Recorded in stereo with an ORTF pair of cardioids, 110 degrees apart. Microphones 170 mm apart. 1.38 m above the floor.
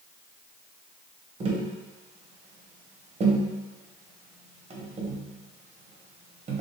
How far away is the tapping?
About 0.6 m.